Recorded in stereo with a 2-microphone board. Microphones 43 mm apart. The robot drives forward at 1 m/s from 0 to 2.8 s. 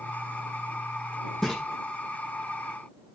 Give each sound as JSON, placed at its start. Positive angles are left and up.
{"t": 1.4, "sound": "a splash", "side_deg": 5, "distance_m": 6.0}